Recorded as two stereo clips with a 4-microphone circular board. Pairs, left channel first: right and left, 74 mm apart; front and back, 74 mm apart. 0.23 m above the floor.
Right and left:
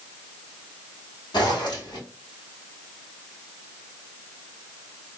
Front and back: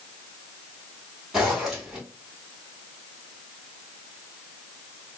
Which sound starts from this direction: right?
A zipper, at 1.3 s.